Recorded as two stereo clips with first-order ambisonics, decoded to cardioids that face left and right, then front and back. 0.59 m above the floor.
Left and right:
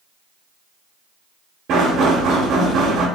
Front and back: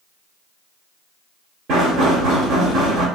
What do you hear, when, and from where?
1.7 s knocking: 130° right, 1.2 m